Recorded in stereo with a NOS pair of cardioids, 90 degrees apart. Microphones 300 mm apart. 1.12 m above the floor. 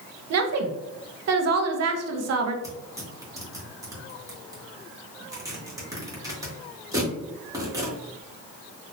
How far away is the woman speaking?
About 0.9 m.